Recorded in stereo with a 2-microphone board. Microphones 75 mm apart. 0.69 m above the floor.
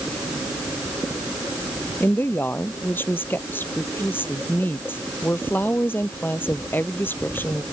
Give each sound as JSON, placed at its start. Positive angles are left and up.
{"t": 2.0, "sound": "a woman speaking", "side_deg": 30}